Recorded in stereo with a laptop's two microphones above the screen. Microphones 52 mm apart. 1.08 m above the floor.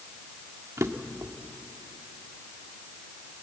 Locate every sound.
0.8 s a drawer: 70° right (ahead or behind), 1.6 m